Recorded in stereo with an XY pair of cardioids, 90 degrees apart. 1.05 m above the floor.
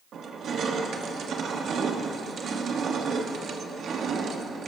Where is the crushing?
65° right, 1.2 m.